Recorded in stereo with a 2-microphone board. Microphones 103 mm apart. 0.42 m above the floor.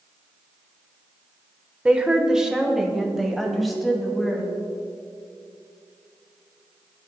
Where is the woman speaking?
10° right (ahead or behind), 1.0 m; by 4.5 s centre (ahead or behind), 2.5 m.